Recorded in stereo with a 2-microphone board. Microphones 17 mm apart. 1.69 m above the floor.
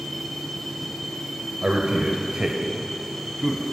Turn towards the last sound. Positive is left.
turn(degrees=-10)  # may be behind; listen again after turning